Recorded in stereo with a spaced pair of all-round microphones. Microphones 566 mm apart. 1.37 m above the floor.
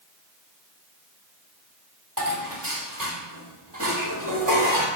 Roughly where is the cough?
I don't hear a cough.